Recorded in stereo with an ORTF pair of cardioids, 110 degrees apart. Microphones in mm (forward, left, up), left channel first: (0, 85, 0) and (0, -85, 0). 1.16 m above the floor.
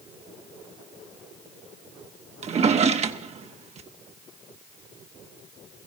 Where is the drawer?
40° right, 0.9 m.